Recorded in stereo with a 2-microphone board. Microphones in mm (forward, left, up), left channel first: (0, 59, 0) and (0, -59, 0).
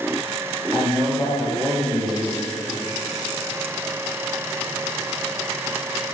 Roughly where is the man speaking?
Centre.